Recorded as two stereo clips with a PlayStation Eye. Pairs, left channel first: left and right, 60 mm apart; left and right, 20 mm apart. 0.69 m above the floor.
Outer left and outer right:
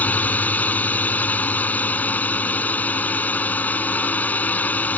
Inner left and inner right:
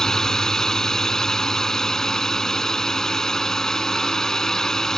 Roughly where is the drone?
Left.